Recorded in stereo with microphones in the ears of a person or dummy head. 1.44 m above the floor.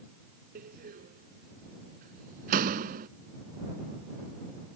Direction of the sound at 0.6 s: 50° right (ahead or behind).